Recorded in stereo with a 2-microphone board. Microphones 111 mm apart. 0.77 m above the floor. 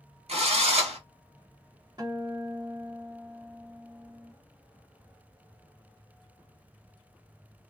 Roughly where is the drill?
Right.